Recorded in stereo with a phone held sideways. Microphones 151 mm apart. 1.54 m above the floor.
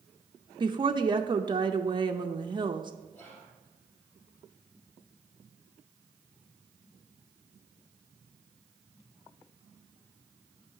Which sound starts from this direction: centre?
Whispering, at 3.1 s.